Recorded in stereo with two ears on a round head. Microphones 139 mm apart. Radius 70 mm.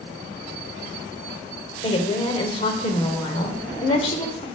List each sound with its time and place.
1.8 s a woman speaking: 35° left (ahead or behind), 1.3 m